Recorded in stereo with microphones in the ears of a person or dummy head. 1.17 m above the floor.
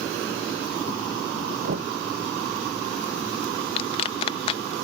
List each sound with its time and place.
1.6 s knocking: 55° right (ahead or behind)
3.8 s a clap: 40° left (ahead or behind)